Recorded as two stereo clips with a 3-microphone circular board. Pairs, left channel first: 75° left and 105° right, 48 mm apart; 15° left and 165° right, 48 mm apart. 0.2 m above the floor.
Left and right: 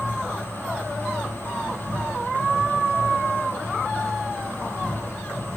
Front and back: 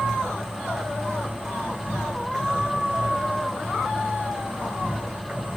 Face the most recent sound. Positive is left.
turn(degrees=-110)